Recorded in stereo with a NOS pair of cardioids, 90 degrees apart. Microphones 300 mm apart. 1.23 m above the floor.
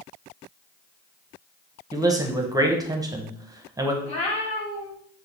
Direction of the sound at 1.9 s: 10° right.